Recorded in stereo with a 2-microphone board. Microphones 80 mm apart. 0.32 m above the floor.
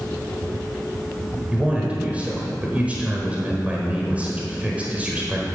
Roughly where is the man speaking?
Centre.